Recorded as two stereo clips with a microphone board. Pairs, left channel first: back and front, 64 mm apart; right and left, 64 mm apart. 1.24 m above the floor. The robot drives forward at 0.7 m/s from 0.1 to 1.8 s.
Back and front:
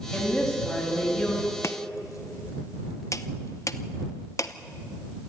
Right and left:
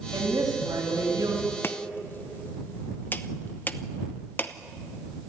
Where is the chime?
I don't hear a chime.